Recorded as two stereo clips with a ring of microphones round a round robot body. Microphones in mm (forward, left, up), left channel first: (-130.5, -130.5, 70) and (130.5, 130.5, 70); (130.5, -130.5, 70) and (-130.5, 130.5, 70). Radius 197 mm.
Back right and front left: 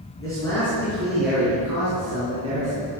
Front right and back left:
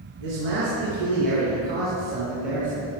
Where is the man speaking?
145° left, 5 m; by 2.9 s 115° left, 4 m.